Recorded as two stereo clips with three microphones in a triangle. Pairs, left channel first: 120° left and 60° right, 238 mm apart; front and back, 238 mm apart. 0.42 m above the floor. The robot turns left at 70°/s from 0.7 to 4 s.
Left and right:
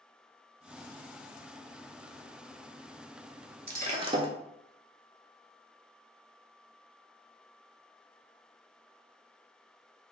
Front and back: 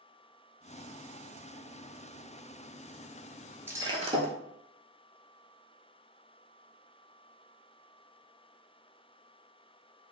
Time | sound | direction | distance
3.7 | breaking glass | 100° right | 0.5 m